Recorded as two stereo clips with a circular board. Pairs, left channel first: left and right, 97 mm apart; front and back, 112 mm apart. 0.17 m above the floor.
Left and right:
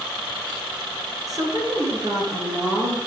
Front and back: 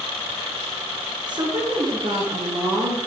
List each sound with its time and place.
1.3 s a woman speaking: 135° right, 2.5 m